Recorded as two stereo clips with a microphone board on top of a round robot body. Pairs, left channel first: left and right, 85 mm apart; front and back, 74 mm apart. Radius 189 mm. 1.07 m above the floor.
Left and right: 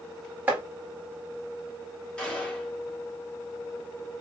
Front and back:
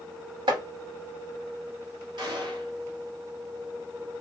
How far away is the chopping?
About 1.6 m.